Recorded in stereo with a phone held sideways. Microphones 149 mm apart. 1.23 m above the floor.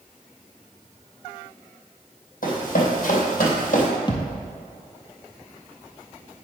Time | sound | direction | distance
2.4 | running footsteps | 65° left (ahead or behind) | 3.5 m
4.1 | a thud | 30° left (ahead or behind) | 1.6 m